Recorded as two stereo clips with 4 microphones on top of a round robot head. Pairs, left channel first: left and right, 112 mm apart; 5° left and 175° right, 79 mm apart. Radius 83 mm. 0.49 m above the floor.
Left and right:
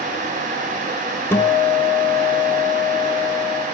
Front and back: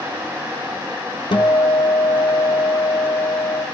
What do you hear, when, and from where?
1.3 s a guitar: 20° left, 2.5 m